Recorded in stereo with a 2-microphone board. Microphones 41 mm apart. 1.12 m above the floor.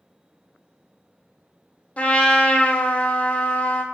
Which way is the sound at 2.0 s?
40° left (ahead or behind).